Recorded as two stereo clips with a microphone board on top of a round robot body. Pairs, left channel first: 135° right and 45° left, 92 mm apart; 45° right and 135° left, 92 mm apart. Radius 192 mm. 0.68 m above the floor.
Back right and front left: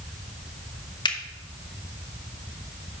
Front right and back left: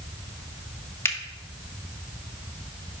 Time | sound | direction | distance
1.1 | a finger snap | 105° right | 1.2 m